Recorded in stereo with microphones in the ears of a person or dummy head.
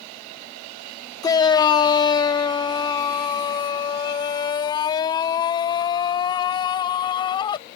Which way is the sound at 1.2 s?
20° left (ahead or behind).